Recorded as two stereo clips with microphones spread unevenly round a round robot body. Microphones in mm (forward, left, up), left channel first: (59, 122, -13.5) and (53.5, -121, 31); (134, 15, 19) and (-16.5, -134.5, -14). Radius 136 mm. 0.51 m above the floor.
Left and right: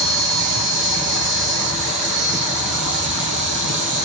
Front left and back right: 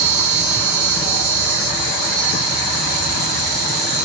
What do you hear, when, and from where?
0.0 s an insect: 145° right, 1.3 m